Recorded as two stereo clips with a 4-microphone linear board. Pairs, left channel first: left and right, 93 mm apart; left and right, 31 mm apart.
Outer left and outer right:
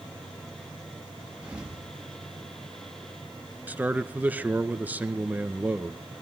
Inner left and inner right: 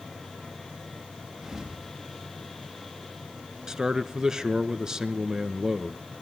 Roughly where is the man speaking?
Centre.